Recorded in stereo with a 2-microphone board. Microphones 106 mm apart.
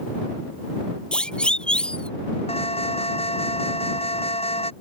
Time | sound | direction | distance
1.1 | a siren | 10° left (ahead or behind) | ?
2.5 | an alarm | 70° left (ahead or behind) | ?